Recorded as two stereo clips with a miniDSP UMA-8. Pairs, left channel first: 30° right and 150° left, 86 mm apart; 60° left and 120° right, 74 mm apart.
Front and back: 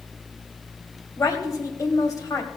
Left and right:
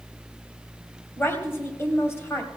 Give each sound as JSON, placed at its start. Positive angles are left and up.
{"t": 1.2, "sound": "a woman speaking", "azimuth_deg": 10, "distance_m": 2.0}